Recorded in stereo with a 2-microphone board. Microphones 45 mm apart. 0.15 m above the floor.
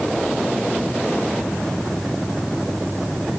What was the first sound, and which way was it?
Only background noise.